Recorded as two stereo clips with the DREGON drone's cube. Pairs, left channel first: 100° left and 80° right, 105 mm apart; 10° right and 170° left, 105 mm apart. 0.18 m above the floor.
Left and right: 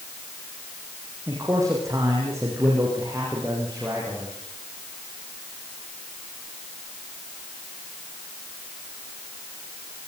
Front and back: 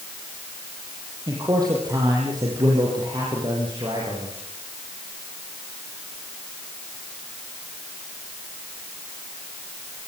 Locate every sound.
1.3 s a man speaking: 140° right, 7.5 m; by 4.3 s 145° right, 10.5 m